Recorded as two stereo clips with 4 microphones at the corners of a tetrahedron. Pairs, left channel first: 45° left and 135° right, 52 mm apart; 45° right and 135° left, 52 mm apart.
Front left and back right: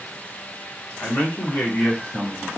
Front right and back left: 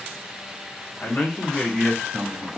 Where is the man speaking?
5° left, 1.2 m; by 2.5 s 120° left, 1.2 m.